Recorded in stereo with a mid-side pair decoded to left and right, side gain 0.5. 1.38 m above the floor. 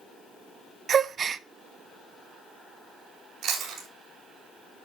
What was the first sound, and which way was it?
A gasp, 45° right.